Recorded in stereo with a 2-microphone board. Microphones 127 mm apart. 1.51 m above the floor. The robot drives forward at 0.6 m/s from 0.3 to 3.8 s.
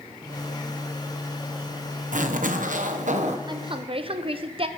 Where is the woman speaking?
35° right (ahead or behind), 0.8 m; by 4.7 s 45° right (ahead or behind), 0.7 m.